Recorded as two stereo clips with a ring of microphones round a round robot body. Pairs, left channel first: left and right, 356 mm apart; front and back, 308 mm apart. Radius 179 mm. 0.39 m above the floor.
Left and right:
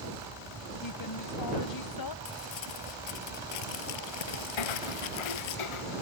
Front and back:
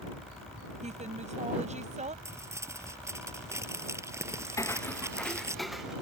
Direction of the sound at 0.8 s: 115° left.